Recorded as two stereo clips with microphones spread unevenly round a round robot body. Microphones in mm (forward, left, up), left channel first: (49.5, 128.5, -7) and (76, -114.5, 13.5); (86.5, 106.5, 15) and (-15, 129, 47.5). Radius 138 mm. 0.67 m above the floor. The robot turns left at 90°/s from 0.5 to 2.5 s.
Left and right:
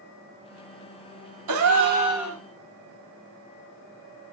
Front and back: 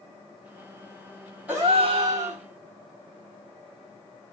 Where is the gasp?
105° right, 1.4 m; by 2.4 s 170° left, 1.4 m.